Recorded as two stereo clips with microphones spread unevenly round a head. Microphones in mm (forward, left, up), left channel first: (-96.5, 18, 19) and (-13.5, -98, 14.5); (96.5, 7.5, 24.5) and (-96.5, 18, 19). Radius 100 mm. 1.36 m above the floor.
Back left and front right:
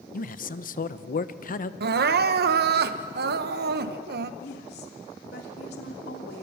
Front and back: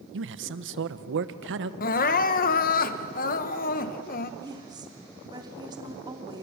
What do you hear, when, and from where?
0.1 s a man speaking: 150° left, 1.2 m
1.8 s crying: 55° right, 1.0 m
4.4 s a woman speaking: 105° left, 3 m